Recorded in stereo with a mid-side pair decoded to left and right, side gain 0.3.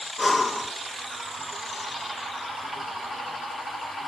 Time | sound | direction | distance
0.2 | breathing | 35° left | 1.7 m